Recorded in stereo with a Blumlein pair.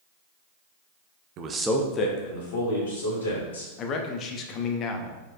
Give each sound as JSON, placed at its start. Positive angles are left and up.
{"t": 1.4, "sound": "a man speaking", "azimuth_deg": -35, "distance_m": 0.7}
{"t": 3.8, "sound": "a man speaking", "azimuth_deg": 30, "distance_m": 0.7}